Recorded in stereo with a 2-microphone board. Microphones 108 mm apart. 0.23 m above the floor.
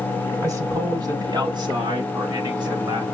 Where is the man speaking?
30° right (ahead or behind), 2 m; by 3.0 s 40° right (ahead or behind), 2.5 m.